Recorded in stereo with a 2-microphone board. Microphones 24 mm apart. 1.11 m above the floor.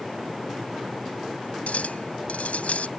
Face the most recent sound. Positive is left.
turn(degrees=85)